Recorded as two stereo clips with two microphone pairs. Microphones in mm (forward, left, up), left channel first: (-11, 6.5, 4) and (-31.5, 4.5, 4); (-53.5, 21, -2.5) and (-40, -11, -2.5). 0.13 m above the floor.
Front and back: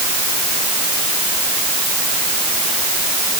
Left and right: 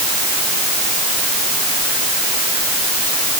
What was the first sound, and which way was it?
Only background noise.